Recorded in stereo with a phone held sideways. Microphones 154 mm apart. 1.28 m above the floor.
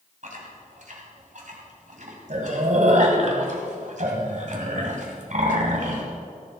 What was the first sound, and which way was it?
Chewing, 60° right (ahead or behind).